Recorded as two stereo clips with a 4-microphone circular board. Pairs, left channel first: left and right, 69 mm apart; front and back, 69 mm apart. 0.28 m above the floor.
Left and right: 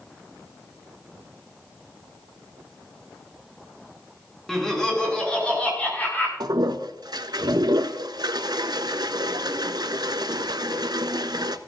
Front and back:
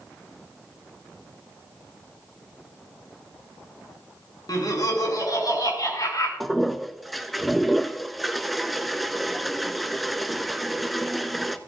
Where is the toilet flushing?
90° right, 0.6 m.